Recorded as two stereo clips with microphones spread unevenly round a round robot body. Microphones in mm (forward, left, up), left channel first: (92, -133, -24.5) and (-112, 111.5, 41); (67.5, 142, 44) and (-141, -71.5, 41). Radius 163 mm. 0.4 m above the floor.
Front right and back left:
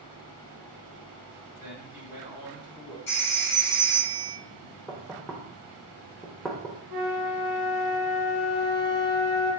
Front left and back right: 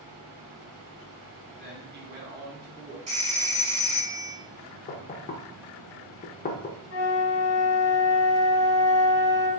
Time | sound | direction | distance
1.6 | a man speaking | 135° right | 1.2 m
3.1 | a phone ringing | 70° right | 1.6 m
4.9 | knocking | 15° left | 0.5 m
6.9 | a flute | 65° left | 1.6 m